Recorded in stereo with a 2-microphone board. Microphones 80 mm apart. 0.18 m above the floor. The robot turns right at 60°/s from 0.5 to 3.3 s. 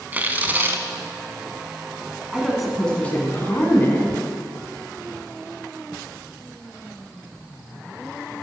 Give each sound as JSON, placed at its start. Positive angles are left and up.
{"t": 0.1, "sound": "tearing paper", "side_deg": -25, "distance_m": 0.5}
{"t": 2.3, "sound": "a woman speaking", "azimuth_deg": -15, "distance_m": 1.3}